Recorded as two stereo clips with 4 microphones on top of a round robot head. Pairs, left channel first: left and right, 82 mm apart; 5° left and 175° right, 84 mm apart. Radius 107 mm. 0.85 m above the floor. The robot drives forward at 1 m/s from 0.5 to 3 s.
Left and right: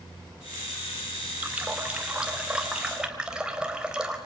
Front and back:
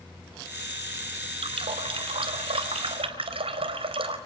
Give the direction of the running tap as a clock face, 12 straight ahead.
5 o'clock.